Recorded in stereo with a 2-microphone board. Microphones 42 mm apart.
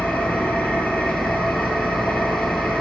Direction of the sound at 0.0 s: 35° left (ahead or behind).